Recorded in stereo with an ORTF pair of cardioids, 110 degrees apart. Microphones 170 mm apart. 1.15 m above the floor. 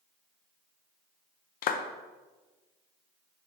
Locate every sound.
1.6 s a clap: 60° left, 0.7 m